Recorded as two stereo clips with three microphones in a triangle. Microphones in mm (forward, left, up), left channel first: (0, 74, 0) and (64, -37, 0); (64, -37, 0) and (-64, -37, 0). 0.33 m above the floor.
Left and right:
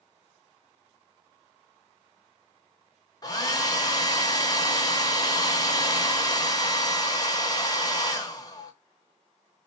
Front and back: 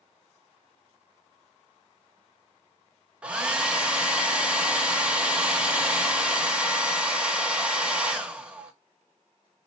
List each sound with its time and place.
3.2 s a hair dryer: 105° left, 0.7 m